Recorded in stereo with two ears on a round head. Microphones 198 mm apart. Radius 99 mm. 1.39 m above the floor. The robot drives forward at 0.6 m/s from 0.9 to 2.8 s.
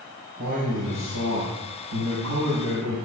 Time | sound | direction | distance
0.4 | a man speaking | 80° right | 4.5 m